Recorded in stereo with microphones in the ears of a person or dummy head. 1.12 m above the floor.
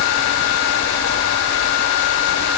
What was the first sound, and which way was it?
Only background noise.